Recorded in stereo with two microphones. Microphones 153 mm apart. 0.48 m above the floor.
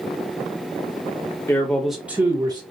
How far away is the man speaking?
About 1.2 m.